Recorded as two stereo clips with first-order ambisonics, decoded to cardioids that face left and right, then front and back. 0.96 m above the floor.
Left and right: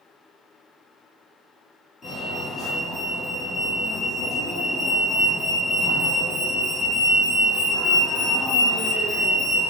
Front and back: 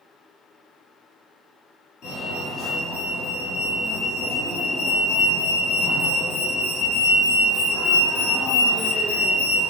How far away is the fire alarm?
About 1.7 m.